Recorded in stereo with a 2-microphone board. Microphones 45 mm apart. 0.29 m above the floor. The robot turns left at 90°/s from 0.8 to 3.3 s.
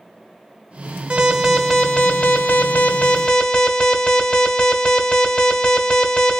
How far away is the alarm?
About 1.1 m.